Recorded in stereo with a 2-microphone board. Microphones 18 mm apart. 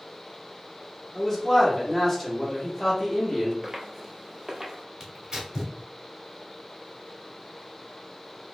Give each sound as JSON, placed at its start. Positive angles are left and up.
{"t": 1.1, "sound": "a man speaking", "side_deg": 15, "distance_m": 1.3}
{"t": 3.6, "sound": "footsteps", "side_deg": -15, "distance_m": 0.7}
{"t": 5.0, "sound": "tearing paper", "side_deg": -50, "distance_m": 0.8}